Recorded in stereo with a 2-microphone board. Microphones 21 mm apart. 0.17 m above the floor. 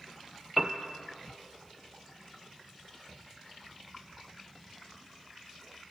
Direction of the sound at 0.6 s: 10° right (ahead or behind).